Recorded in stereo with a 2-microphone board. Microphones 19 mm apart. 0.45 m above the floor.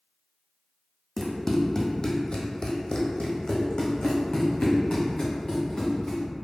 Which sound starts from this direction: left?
Running footsteps, at 1.2 s.